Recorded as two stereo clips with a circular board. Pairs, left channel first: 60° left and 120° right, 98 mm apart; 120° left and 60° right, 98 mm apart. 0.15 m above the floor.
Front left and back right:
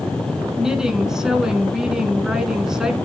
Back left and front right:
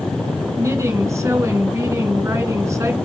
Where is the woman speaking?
40° right, 1.9 m.